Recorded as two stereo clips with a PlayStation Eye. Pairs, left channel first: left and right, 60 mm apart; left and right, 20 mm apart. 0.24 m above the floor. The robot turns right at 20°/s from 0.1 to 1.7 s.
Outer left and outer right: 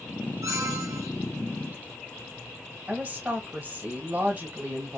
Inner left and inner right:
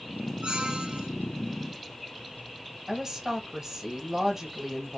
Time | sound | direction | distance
0.4 | a squeak | 65° right (ahead or behind) | 1.3 m
2.9 | a woman speaking | 25° right (ahead or behind) | 1.5 m